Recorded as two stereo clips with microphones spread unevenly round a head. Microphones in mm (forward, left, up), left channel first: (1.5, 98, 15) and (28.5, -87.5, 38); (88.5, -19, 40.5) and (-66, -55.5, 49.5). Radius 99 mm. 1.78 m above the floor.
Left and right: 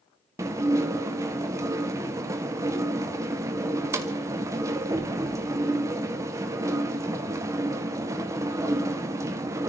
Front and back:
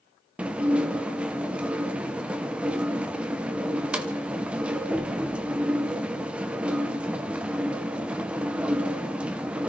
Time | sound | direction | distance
0.4 | dishes clattering | 100° right | 0.8 m